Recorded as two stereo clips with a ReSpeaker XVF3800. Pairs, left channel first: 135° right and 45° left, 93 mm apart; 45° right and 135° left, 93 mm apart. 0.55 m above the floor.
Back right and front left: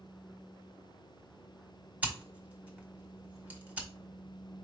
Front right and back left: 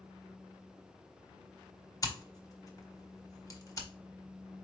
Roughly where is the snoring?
No snoring in this recording.